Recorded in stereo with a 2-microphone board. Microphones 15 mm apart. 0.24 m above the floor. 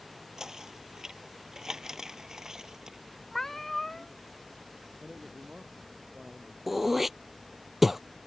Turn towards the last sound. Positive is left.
turn(degrees=-10)  # may be behind; listen again after turning